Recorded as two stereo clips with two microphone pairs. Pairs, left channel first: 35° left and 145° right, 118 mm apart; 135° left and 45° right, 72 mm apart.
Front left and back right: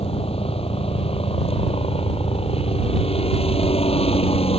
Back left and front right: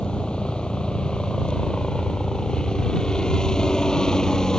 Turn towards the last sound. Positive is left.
turn(degrees=55)